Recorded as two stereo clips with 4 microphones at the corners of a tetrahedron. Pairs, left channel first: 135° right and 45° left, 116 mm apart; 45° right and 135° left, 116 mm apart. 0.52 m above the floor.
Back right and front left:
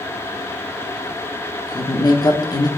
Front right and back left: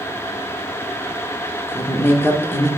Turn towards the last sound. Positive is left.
turn(degrees=-100)